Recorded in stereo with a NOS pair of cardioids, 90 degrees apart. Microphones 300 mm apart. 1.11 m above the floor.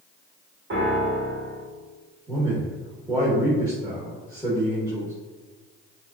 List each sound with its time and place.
0.7 s a piano: 40° right, 1.6 m
2.3 s a man speaking: 10° right, 1.3 m